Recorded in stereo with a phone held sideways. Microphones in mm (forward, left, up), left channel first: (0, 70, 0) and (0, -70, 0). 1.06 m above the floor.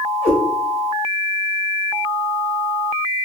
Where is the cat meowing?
50° left (ahead or behind), 1.1 m.